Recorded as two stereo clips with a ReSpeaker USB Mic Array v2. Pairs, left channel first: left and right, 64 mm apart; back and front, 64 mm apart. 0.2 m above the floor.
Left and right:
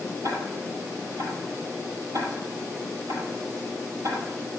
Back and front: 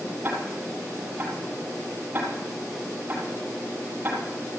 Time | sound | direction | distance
0.2 | ticking | 60° right | 4.5 m